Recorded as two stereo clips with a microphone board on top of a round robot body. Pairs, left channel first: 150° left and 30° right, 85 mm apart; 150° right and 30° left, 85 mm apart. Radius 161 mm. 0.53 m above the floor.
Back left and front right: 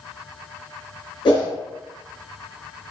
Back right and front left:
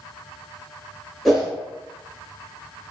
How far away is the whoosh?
About 1.3 m.